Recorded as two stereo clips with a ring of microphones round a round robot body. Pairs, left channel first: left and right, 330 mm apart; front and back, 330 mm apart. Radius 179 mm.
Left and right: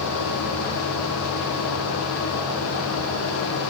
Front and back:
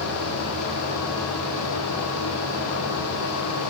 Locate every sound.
Only background noise.